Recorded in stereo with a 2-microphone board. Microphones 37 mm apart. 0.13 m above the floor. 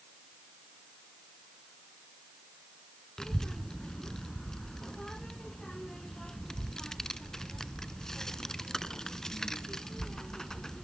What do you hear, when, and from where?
3.2 s a child speaking: 15° left (ahead or behind), 0.7 m